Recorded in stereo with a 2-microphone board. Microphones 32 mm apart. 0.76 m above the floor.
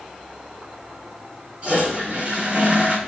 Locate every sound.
1.6 s a toilet flushing: 35° right (ahead or behind), 3.5 m